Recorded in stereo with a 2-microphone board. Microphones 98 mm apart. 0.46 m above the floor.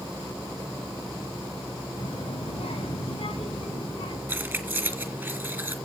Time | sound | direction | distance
2.0 | a child speaking | 55° left (ahead or behind) | 2 m
4.3 | keys jangling | 20° right (ahead or behind) | 3 m